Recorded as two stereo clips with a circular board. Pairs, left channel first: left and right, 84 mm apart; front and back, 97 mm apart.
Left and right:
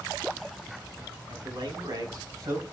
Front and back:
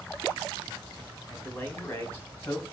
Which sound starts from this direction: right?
A man speaking, at 1.3 s.